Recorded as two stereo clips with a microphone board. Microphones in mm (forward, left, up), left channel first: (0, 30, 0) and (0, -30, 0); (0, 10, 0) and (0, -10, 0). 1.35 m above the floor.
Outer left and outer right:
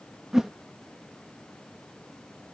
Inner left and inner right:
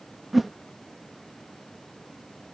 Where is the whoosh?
5° right (ahead or behind).